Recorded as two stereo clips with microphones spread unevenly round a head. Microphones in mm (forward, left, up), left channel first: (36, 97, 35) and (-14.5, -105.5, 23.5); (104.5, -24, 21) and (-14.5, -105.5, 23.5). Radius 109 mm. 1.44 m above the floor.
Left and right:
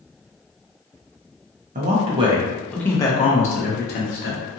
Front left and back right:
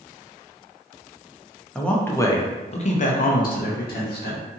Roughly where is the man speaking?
Ahead right.